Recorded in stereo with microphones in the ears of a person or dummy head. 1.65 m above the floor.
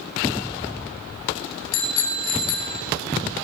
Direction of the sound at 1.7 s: 80° left.